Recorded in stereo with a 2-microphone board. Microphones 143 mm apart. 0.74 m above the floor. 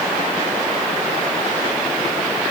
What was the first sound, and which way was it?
Only background noise.